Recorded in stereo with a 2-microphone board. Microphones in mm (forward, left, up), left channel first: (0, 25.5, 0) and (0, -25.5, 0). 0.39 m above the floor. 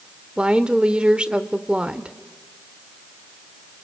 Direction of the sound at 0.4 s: 20° right (ahead or behind).